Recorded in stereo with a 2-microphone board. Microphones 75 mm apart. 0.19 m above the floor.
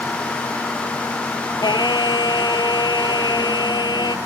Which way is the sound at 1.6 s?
75° left (ahead or behind).